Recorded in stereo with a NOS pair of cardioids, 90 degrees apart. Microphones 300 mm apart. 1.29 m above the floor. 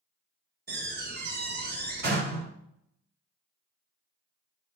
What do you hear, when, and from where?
0.7 s a door slam: 35° right, 3 m